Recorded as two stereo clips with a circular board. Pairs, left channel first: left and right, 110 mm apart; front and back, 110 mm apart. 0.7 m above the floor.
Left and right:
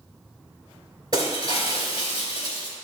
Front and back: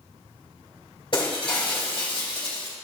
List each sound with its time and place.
1.1 s breaking glass: 45° right, 3.5 m